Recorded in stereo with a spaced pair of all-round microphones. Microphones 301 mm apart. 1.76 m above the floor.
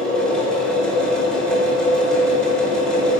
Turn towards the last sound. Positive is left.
turn(degrees=5)  # may be behind; listen again after turning